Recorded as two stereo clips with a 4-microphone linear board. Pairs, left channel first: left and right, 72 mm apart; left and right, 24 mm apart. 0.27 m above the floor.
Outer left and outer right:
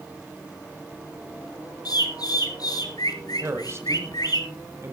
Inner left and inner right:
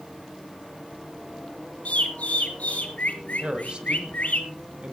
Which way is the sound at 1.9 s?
65° left (ahead or behind).